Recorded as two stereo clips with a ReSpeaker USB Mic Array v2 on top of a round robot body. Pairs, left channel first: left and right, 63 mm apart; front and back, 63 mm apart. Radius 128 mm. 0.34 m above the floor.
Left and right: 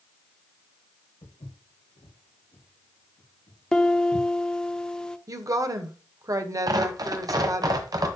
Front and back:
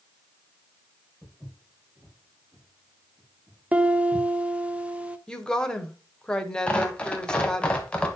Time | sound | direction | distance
1.2 | footsteps | 100° left | 4 m
3.7 | a piano | 150° left | 1.2 m
5.3 | a woman speaking | 80° right | 1.6 m
6.7 | tearing paper | 75° right | 1.5 m